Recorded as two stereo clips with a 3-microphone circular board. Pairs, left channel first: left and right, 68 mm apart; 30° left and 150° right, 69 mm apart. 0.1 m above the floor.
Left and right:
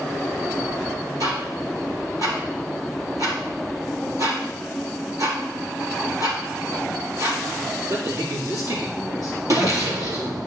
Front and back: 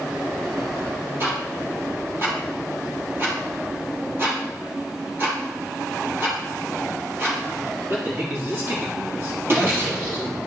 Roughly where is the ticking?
Right.